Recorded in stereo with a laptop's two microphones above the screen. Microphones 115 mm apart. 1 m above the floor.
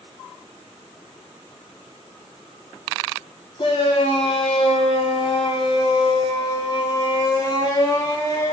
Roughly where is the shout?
Left.